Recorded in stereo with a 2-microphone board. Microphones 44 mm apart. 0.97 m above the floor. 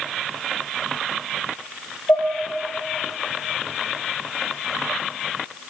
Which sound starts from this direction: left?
Dishes clattering, at 2.1 s.